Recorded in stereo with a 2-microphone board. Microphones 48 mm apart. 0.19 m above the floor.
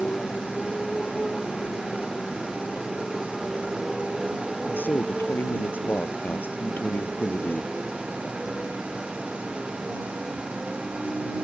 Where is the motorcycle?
10° left (ahead or behind); by 11.4 s 25° right (ahead or behind).